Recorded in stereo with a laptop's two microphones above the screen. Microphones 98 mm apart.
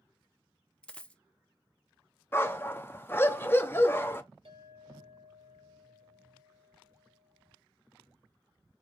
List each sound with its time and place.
0.8 s a dropped coin: 15° left (ahead or behind), 0.7 m
2.3 s a dog barking: 25° left (ahead or behind), 0.5 m
4.5 s a clink: 85° right, 2.5 m